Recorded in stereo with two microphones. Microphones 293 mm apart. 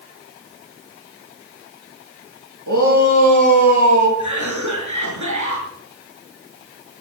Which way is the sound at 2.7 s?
80° right.